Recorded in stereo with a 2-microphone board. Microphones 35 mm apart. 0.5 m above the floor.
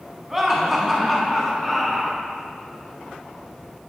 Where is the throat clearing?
No throat clearing in this recording.